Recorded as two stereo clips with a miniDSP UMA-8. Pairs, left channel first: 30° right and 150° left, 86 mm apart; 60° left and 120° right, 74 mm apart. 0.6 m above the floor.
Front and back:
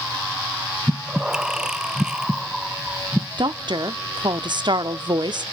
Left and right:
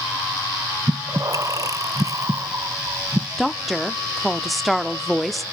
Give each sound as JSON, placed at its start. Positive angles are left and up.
{"t": 0.9, "sound": "breathing", "azimuth_deg": -130, "distance_m": 0.5}
{"t": 3.4, "sound": "a woman speaking", "azimuth_deg": 150, "distance_m": 1.0}